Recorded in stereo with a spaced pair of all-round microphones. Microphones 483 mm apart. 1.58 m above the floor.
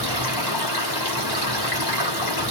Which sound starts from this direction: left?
Running water, at 0.0 s.